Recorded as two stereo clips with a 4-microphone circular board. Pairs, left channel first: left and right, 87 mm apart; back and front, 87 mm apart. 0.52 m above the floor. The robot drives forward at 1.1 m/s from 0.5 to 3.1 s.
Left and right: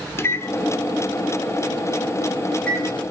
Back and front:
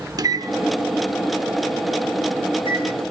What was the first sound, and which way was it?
A microwave, 35° left.